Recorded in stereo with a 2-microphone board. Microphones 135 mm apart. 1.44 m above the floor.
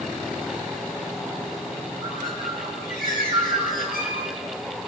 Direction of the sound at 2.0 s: 75° left (ahead or behind).